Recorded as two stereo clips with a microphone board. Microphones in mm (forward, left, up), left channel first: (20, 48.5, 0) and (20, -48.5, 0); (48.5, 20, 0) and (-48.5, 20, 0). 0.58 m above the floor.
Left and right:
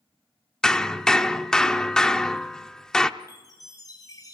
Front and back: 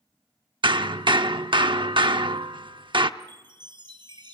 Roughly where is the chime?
Behind left.